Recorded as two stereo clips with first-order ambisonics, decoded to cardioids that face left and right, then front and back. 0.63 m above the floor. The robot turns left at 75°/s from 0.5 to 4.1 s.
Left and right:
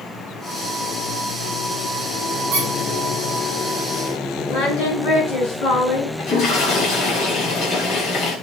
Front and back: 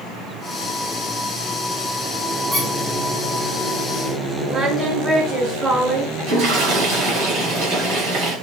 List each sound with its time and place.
2.5 s a squeak: 95° right, 5.5 m; by 2.7 s 110° right, 5.5 m
4.5 s singing: 105° left, 4.5 m
6.2 s a toilet flushing: 135° left, 7.5 m